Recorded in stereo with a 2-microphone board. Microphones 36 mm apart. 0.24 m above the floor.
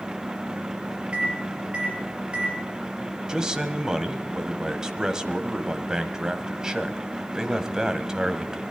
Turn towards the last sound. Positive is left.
turn(degrees=-20)  # may be behind; listen again after turning